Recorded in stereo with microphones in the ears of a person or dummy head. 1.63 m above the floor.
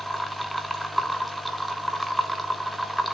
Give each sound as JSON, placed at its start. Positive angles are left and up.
{"t": 0.0, "sound": "a machine running", "side_deg": 0, "distance_m": 0.7}